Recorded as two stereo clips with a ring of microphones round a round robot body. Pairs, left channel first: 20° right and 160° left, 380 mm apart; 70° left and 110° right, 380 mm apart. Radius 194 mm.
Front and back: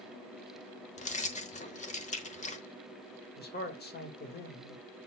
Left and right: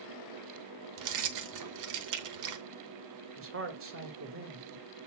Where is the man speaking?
75° right, 1.7 m.